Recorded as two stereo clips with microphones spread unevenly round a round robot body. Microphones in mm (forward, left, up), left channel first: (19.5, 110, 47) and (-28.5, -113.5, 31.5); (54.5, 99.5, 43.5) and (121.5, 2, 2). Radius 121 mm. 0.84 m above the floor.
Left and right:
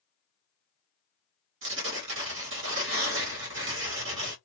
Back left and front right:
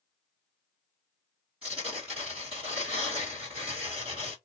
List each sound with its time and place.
1.6 s tearing paper: 130° right, 1.3 m